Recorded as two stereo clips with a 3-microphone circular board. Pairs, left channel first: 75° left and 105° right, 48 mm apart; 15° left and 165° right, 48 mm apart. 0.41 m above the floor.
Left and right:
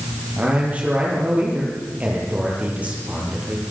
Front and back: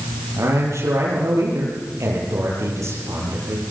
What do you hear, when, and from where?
0.4 s a man speaking: 170° right, 9 m